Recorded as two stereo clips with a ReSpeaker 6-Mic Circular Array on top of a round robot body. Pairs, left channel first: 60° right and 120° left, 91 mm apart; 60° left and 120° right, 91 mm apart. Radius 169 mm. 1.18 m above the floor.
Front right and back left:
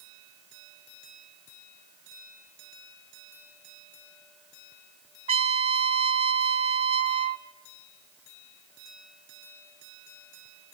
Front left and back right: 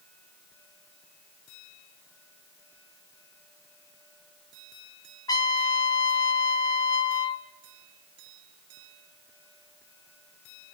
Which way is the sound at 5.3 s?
110° left.